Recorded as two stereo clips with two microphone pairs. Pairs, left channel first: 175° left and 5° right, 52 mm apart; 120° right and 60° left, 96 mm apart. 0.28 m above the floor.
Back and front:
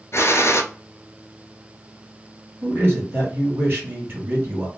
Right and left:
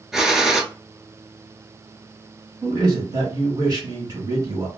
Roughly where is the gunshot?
Behind left.